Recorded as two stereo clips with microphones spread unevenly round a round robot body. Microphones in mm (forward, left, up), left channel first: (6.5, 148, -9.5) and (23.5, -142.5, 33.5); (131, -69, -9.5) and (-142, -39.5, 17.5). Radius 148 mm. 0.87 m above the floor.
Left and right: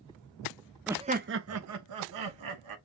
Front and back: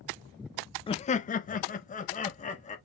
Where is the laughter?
15° left, 0.5 m; by 2.8 s 70° right, 1.6 m.